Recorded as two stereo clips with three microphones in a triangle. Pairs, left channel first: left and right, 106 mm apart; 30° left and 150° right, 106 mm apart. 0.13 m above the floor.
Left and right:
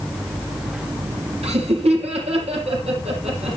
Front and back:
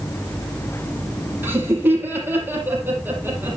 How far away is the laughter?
About 4 m.